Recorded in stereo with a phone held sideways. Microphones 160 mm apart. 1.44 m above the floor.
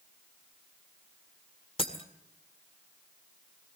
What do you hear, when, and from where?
1.8 s breaking glass: 35° left (ahead or behind), 1.6 m